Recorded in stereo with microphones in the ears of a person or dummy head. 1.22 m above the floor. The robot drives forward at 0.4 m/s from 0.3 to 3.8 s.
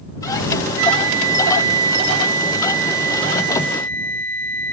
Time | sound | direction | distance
0.8 | a flute | 65° right (ahead or behind) | 1.0 m